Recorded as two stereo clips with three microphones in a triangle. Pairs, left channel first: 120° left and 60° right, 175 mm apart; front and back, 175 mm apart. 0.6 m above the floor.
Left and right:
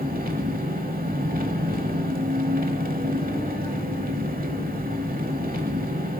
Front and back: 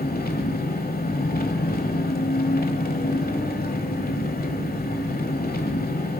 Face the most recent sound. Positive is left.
turn(degrees=-30)